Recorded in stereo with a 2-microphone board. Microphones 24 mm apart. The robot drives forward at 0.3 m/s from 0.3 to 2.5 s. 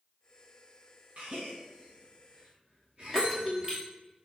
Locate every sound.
1.2 s a gasp: 65° right (ahead or behind), 3.5 m; by 3.7 s 55° right (ahead or behind), 4 m
3.1 s a bell: 25° right (ahead or behind), 2 m